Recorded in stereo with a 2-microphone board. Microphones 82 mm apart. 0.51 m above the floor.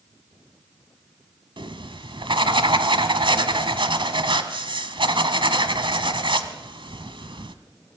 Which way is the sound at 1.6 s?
85° right.